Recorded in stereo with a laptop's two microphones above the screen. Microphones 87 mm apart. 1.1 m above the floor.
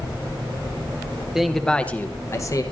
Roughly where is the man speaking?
Centre.